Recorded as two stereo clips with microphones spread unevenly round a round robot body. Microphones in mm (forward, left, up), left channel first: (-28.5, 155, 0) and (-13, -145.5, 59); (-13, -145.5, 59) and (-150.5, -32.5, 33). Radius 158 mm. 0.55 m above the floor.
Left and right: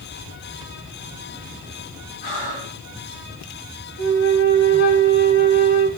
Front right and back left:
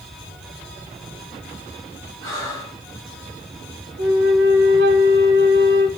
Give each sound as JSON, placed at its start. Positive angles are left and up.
{"t": 2.2, "sound": "breathing", "azimuth_deg": 95, "distance_m": 7.0}
{"t": 4.0, "sound": "a flute", "azimuth_deg": 140, "distance_m": 1.8}